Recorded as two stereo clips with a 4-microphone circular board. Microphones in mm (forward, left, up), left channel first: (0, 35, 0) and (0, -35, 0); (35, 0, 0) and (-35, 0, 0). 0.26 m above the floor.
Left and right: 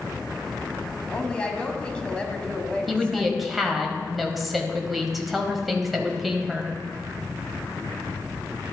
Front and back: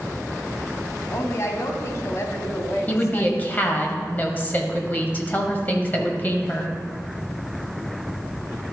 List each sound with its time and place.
1.1 s a woman speaking: 20° left, 1.4 m
2.9 s a woman speaking: straight ahead, 1.2 m